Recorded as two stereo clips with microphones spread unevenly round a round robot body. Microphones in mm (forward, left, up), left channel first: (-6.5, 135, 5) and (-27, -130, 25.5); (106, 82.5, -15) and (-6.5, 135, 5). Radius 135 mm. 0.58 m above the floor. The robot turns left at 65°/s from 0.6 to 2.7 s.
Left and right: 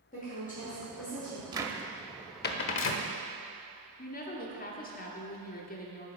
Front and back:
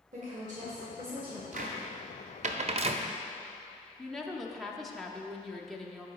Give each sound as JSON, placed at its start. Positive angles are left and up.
{"t": 0.1, "sound": "a woman speaking", "azimuth_deg": 140, "distance_m": 1.7}
{"t": 1.5, "sound": "a cupboard door", "azimuth_deg": -170, "distance_m": 0.6}
{"t": 4.0, "sound": "a woman speaking", "azimuth_deg": 55, "distance_m": 0.9}